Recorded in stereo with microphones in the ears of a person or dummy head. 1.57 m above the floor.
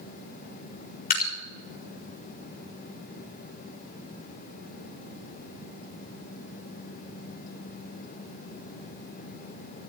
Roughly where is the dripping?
Left.